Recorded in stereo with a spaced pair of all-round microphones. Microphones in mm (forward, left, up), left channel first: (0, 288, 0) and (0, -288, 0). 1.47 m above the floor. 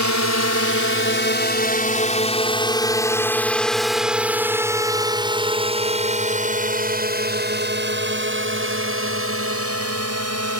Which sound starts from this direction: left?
A drone, at 0.0 s.